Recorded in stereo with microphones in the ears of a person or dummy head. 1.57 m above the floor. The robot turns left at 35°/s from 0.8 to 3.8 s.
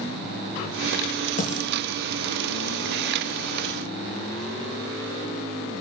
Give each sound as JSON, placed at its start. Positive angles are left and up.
{"t": 1.4, "sound": "a dropped coin", "side_deg": 45, "distance_m": 6.5}